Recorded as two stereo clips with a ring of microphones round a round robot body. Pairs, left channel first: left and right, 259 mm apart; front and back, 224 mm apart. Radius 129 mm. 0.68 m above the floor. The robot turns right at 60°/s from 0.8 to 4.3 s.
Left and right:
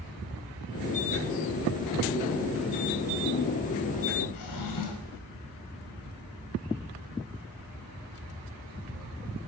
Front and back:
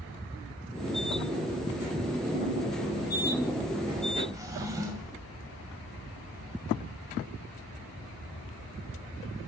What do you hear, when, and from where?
4.3 s a drawer: 105° left, 2 m